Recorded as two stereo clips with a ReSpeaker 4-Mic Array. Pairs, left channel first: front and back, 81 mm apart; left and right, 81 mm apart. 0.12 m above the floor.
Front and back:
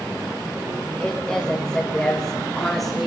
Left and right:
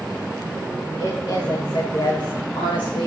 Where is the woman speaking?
75° left, 7.5 m; by 3.1 s 90° left, 7 m.